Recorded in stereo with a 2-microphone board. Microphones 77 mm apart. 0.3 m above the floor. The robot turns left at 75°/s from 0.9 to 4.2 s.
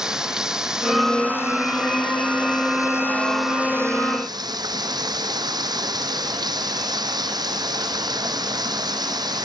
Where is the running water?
175° right; by 9.5 s 60° right.